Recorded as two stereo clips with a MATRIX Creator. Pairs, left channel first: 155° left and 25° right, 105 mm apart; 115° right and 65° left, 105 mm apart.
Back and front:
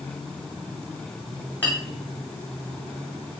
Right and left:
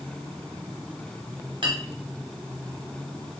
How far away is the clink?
About 1.4 m.